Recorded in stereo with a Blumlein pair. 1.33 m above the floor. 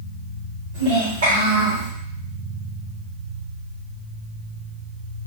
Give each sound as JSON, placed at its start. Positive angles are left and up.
{"t": 0.7, "sound": "a child speaking", "azimuth_deg": -60, "distance_m": 1.2}